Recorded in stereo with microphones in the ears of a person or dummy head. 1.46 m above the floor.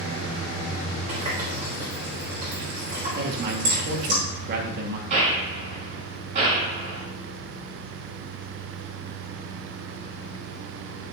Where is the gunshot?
40° right (ahead or behind), 4.5 m.